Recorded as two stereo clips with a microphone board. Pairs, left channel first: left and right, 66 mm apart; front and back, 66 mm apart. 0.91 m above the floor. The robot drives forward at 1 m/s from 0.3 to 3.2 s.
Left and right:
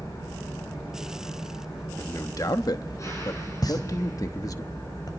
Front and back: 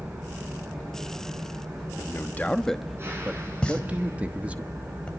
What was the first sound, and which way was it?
An engine running, 115° left.